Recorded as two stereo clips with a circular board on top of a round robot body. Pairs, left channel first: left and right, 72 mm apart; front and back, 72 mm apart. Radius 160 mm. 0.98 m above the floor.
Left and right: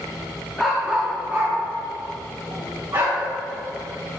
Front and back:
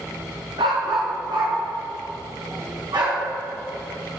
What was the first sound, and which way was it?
A dog barking, 175° left.